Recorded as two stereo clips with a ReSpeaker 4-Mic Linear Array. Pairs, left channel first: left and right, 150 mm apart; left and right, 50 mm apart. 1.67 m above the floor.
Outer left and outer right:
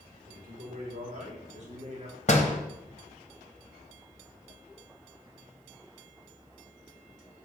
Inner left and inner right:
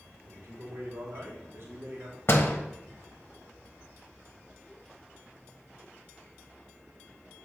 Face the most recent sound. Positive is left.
turn(degrees=50)  # may be behind; listen again after turning